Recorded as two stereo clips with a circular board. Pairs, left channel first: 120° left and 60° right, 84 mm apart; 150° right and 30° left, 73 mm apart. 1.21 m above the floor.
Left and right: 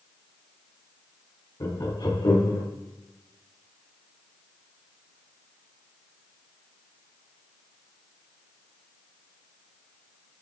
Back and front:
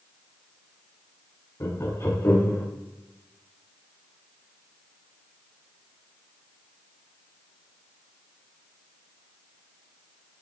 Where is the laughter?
160° left, 1.9 m; by 2.6 s 155° left, 2.5 m.